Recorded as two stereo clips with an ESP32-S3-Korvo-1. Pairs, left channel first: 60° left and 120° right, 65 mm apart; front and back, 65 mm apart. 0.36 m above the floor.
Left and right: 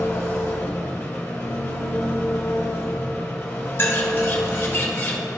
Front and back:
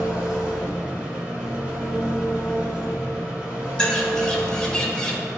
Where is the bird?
70° left, 1.0 m.